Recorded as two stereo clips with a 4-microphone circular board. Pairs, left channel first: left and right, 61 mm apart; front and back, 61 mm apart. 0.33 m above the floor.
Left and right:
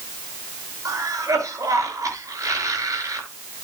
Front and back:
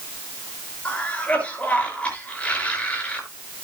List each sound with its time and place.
0.8 s a cough: 70° right, 5.5 m